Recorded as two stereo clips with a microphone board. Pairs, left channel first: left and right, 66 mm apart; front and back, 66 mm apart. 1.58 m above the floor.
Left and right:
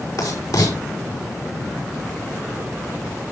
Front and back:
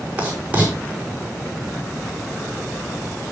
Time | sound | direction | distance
0.2 | writing | 110° left | 6 m